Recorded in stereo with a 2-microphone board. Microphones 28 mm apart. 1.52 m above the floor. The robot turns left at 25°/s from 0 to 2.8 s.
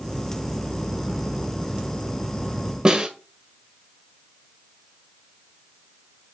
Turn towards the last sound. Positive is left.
turn(degrees=-30)  # may be behind; listen again after turning